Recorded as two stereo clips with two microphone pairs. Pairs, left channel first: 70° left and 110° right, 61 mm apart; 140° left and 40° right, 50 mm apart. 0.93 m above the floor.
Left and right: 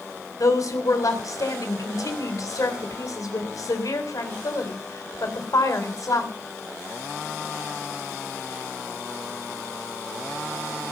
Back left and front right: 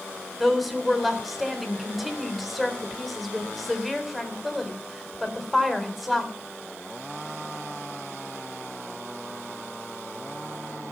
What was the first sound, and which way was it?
A woman speaking, 50° left.